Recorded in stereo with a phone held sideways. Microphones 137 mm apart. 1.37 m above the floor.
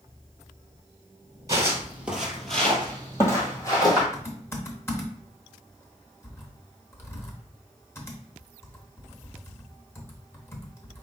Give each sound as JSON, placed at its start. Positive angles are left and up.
{"t": 1.5, "sound": "footsteps", "side_deg": -25, "distance_m": 1.5}
{"t": 4.1, "sound": "typing on a keyboard", "side_deg": 20, "distance_m": 1.0}